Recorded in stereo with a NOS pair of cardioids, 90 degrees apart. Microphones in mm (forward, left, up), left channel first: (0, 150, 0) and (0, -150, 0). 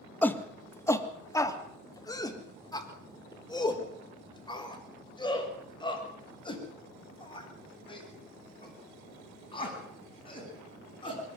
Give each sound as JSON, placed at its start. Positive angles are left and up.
{"t": 0.2, "sound": "a shout", "azimuth_deg": 5, "distance_m": 2.0}